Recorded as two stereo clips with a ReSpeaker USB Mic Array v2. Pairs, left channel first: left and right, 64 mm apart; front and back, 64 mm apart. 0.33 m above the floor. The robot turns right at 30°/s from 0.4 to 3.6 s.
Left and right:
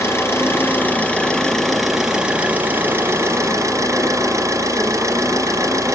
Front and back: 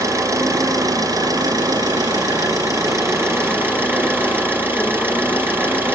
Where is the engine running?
140° left, 3.5 m; by 6.0 s 125° right, 3.5 m.